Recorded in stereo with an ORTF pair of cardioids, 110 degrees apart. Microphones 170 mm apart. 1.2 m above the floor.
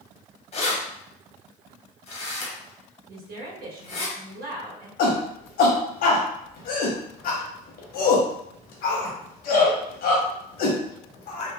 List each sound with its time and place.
0.5 s keys jangling: 40° left, 1.0 m
3.1 s a woman speaking: 65° right, 1.2 m
5.0 s a shout: 65° left, 1.1 m